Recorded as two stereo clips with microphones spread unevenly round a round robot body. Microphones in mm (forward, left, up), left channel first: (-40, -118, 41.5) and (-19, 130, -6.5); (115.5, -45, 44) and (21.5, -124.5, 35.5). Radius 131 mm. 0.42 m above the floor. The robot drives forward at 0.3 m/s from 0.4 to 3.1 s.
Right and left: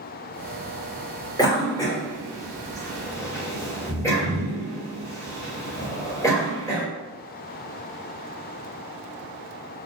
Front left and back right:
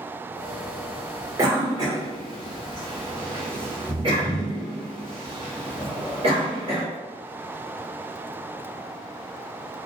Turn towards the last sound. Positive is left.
turn(degrees=180)